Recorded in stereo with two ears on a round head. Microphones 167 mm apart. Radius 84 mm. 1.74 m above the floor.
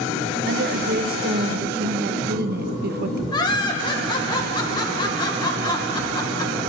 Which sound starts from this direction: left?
Laughter, at 3.3 s.